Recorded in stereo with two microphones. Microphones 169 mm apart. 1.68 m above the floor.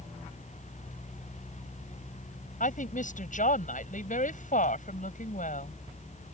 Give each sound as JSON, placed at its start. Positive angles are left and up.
{"t": 2.6, "sound": "a woman speaking", "side_deg": 50}